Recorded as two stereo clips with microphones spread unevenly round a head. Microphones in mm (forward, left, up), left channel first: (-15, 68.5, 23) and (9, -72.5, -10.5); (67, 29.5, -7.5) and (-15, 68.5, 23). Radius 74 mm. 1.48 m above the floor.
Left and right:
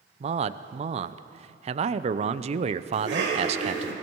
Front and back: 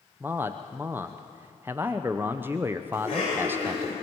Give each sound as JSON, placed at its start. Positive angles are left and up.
{"t": 0.2, "sound": "a man speaking", "azimuth_deg": -125, "distance_m": 0.6}
{"t": 2.9, "sound": "a cough", "azimuth_deg": -80, "distance_m": 6.5}